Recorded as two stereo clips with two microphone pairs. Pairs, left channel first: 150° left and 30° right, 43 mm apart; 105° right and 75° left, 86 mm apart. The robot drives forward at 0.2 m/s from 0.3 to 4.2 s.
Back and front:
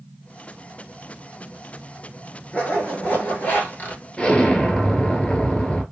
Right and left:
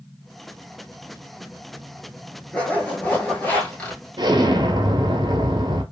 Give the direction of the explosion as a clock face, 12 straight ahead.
9 o'clock.